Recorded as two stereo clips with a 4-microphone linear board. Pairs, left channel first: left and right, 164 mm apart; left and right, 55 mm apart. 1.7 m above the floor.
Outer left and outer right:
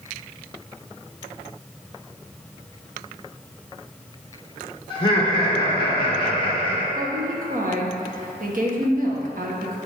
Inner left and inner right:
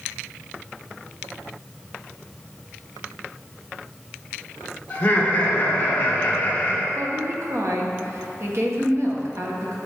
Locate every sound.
4.9 s laughter: 30° left (ahead or behind), 1.7 m
7.0 s a woman speaking: 55° right (ahead or behind), 1.3 m